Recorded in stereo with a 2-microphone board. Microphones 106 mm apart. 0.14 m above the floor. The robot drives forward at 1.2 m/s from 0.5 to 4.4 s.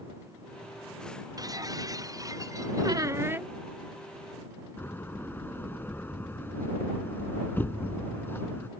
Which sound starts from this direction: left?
A door slam, at 4.8 s.